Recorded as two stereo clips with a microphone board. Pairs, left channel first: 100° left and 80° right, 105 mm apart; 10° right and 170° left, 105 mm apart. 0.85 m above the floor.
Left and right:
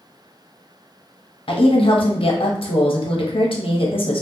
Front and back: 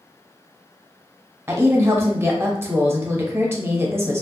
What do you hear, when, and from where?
1.5 s a woman speaking: 105° left, 0.7 m